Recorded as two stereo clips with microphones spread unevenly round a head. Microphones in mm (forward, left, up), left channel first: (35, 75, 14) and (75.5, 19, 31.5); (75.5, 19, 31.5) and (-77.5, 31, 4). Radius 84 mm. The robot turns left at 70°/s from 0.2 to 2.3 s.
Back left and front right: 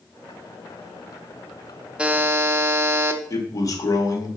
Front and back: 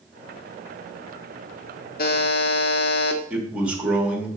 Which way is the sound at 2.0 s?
15° left.